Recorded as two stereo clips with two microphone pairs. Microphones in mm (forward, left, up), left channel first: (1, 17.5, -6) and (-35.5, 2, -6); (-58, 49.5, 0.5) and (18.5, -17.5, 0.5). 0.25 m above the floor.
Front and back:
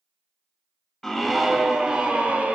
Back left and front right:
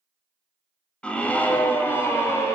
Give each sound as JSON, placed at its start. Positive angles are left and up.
{"t": 1.0, "sound": "a scream", "azimuth_deg": 85, "distance_m": 0.9}